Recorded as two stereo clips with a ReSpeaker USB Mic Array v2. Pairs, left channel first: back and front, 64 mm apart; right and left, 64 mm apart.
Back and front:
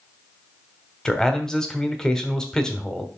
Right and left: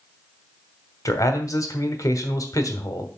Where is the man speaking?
100° right, 1.2 m.